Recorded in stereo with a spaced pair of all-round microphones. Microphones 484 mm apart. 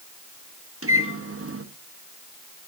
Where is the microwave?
25° right (ahead or behind), 1.2 m.